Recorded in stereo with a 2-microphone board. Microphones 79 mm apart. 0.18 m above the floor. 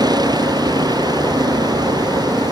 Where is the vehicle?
55° right (ahead or behind).